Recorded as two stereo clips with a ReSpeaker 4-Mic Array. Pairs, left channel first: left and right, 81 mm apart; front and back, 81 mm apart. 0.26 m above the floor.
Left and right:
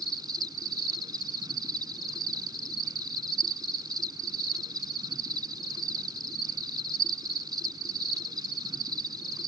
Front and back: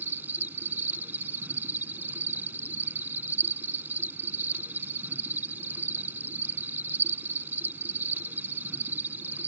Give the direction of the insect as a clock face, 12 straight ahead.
4 o'clock.